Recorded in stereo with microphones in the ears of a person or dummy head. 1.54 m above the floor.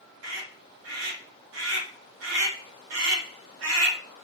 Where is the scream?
80° right, 1.4 m.